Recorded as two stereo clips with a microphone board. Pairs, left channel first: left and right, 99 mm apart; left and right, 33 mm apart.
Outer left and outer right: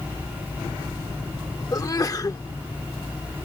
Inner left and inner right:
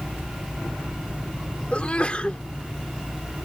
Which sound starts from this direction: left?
A sneeze, at 1.7 s.